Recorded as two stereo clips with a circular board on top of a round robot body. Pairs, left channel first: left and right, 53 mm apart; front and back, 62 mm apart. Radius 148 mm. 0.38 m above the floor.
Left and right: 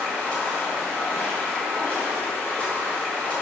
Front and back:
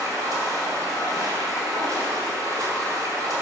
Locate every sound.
0.0 s running water: 160° left, 3 m